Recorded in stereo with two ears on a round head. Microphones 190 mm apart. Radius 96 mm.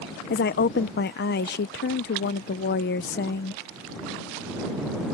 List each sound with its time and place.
0.3 s a woman speaking: 50° left (ahead or behind)